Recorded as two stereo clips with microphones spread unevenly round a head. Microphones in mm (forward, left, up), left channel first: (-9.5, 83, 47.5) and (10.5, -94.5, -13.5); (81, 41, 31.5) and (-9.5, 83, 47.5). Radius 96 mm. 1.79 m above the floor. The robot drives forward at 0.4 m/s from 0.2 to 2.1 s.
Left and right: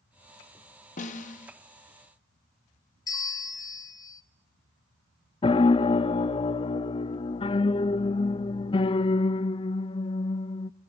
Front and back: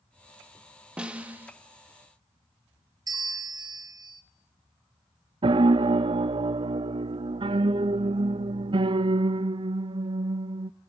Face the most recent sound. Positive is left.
turn(degrees=140)